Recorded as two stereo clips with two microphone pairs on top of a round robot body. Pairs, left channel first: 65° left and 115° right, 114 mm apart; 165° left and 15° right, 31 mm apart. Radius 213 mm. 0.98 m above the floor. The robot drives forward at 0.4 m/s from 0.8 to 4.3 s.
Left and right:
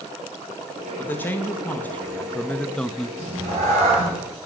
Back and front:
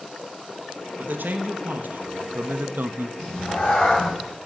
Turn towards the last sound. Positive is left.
turn(degrees=-145)